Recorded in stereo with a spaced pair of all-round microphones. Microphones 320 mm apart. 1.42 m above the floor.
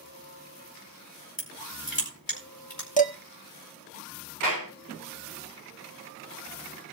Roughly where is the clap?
Left.